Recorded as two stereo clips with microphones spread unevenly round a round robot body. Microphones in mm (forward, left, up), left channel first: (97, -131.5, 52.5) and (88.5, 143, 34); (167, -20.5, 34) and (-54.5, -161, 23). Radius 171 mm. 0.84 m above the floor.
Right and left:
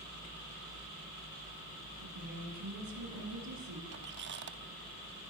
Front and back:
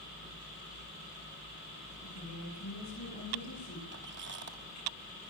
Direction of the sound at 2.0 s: 75° left.